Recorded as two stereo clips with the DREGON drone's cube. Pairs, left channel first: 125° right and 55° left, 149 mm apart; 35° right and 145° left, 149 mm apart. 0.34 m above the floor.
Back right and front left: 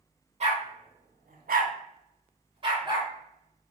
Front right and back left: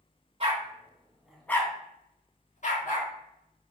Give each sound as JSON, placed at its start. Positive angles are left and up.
{"t": 0.4, "sound": "a dog barking", "azimuth_deg": 95, "distance_m": 0.7}